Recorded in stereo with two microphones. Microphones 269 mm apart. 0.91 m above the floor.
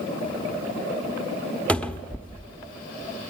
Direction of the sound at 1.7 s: 5° left (ahead or behind).